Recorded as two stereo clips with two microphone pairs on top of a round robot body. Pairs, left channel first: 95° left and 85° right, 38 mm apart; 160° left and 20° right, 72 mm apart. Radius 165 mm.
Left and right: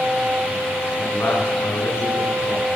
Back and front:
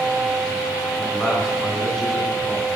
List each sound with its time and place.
1.0 s a man speaking: 75° left, 9 m